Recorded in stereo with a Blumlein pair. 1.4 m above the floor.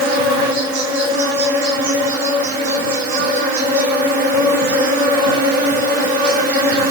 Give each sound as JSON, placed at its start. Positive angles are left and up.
{"t": 0.0, "sound": "an insect", "azimuth_deg": -50, "distance_m": 2.5}